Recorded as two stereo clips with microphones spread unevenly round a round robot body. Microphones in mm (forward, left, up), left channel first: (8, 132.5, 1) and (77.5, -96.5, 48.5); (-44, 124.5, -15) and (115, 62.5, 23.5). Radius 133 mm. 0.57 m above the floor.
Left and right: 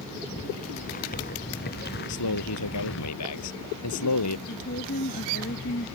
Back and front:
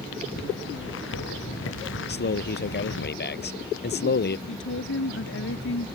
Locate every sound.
0.4 s footsteps: 175° left; by 3.1 s 155° left
2.1 s a man speaking: 135° left
4.5 s a woman speaking: 165° left